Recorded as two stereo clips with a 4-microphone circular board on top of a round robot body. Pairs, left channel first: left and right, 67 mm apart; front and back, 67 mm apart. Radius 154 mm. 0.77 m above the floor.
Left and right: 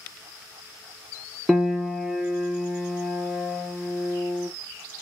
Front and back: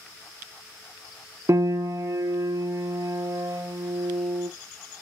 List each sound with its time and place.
1.5 s a piano: 165° right, 0.8 m